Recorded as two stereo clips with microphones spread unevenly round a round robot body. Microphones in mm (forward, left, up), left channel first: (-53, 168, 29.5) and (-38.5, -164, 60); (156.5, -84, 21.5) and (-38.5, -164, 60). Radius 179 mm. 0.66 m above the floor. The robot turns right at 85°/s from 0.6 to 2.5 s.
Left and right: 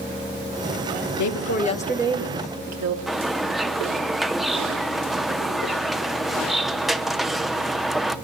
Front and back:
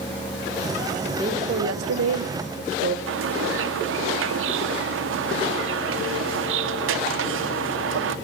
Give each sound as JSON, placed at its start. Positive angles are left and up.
{"t": 1.1, "sound": "a woman speaking", "azimuth_deg": 115, "distance_m": 2.0}
{"t": 3.1, "sound": "a bird", "azimuth_deg": 180, "distance_m": 1.1}